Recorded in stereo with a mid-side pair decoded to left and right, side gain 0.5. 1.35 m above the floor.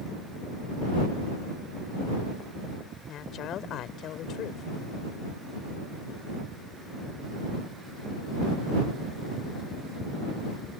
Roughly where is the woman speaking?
Ahead left.